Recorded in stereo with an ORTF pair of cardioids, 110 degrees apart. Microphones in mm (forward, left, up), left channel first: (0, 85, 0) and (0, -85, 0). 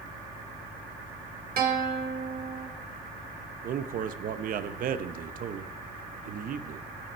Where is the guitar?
55° right, 1.7 m.